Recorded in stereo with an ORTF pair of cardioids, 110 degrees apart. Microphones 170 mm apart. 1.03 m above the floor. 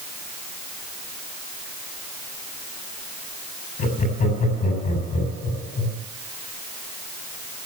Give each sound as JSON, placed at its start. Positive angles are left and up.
{"t": 3.8, "sound": "laughter", "azimuth_deg": 55, "distance_m": 7.0}